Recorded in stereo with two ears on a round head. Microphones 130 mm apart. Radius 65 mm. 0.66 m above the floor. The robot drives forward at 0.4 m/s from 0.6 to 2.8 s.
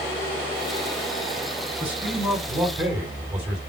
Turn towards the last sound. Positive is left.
turn(degrees=-15)  # may be behind; listen again after turning